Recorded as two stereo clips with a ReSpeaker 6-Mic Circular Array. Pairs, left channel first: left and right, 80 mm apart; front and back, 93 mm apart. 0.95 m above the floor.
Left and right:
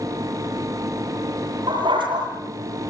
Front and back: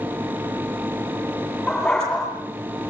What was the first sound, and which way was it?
A dog barking, 85° right.